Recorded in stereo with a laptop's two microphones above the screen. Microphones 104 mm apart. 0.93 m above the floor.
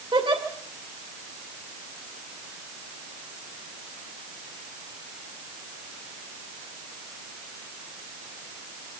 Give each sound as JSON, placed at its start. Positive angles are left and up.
{"t": 0.1, "sound": "a giggle", "side_deg": -55, "distance_m": 2.5}